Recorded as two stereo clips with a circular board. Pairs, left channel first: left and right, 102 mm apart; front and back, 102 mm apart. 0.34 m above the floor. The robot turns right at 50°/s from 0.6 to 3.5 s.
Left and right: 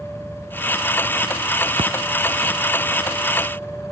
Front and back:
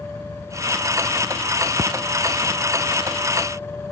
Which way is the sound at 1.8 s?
120° right.